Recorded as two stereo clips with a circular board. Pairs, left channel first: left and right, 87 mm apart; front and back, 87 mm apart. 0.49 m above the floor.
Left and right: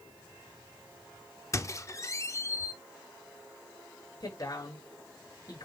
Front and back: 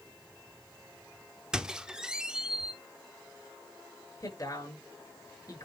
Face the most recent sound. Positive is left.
turn(degrees=45)